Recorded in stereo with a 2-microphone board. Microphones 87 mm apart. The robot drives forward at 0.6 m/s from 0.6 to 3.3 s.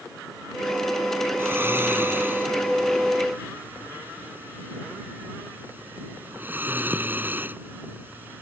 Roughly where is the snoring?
Right.